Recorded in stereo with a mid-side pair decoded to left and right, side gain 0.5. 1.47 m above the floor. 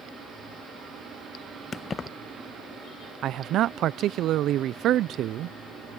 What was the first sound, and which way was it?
Keys jangling, 40° left.